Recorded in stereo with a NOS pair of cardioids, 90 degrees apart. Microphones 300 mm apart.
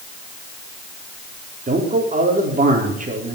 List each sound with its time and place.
1.7 s a man speaking: 25° right, 4 m